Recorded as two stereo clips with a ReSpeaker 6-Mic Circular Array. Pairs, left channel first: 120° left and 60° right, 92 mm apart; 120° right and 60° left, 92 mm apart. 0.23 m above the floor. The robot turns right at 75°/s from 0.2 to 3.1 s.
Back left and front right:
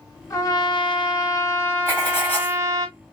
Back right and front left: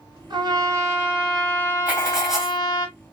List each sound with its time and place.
0.3 s a trumpet: 70° left, 1.9 m; by 2.9 s 100° right, 1.9 m
1.9 s writing: 110° left, 1.5 m; by 2.6 s 165° left, 1.5 m